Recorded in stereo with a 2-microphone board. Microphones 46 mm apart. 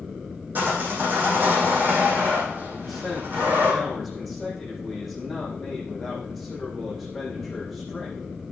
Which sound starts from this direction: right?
Sawing, at 0.6 s.